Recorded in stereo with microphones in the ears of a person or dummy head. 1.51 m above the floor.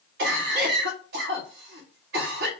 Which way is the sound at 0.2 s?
60° right (ahead or behind).